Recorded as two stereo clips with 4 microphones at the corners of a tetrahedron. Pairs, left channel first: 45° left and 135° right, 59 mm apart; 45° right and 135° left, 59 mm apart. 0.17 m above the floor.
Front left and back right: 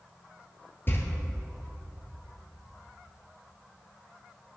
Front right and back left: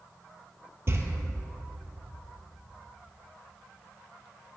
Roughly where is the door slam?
Left.